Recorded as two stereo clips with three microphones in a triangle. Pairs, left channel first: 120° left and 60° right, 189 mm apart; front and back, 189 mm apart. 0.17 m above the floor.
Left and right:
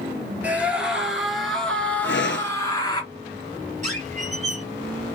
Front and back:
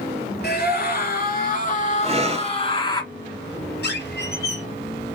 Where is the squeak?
15° right, 2.5 m.